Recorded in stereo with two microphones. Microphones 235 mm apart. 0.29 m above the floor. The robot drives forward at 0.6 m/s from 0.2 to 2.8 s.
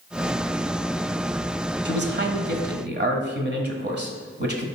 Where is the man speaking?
45° right (ahead or behind), 1.3 m.